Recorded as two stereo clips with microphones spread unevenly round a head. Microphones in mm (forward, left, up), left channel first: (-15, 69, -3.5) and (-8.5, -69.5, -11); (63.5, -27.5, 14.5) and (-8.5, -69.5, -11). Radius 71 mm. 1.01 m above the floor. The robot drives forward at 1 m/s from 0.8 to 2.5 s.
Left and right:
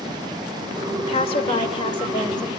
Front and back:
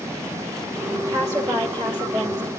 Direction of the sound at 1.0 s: 140° left.